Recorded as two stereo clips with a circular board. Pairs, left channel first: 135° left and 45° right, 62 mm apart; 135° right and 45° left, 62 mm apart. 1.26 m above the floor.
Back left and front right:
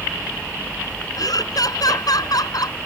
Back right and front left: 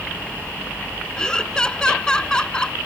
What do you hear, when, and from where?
1.2 s laughter: 145° left